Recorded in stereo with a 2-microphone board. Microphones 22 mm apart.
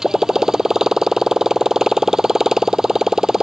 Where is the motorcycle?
25° right (ahead or behind).